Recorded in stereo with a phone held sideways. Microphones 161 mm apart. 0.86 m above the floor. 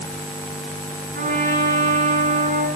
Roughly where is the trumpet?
Right.